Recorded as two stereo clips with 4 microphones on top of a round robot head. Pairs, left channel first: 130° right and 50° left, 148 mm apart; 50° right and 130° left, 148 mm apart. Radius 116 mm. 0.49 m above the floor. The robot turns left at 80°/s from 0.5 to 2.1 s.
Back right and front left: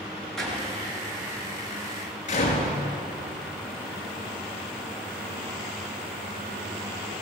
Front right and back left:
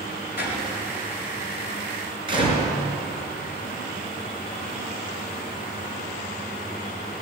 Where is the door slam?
40° right, 5 m; by 2.7 s 170° right, 5 m.